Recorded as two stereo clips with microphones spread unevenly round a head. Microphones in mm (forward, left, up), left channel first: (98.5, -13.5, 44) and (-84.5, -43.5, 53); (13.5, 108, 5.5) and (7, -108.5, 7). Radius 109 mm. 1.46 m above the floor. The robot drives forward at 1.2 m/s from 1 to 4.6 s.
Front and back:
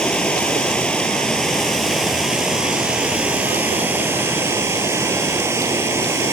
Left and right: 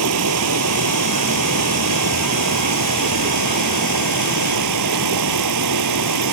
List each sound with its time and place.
0.0 s running water: 75° right; by 6.3 s 95° right